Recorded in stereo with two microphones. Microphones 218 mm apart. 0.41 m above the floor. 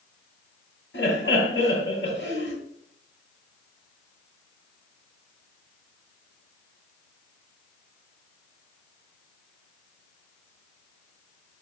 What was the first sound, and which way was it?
Laughter, 65° left (ahead or behind).